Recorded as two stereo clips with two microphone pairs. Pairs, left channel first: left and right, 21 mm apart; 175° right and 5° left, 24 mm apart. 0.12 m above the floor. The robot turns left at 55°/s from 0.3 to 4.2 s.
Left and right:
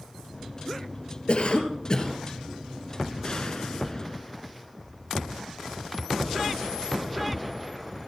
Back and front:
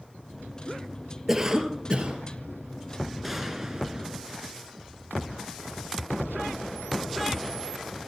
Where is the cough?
80° left, 2.5 m; by 2.2 s 30° left, 2.5 m.